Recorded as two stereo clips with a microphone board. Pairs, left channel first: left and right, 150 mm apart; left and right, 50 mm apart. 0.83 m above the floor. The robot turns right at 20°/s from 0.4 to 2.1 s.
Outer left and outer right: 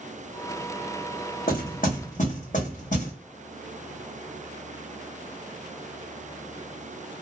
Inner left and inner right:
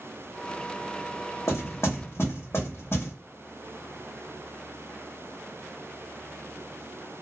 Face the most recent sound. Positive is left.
turn(degrees=55)  # may be behind; listen again after turning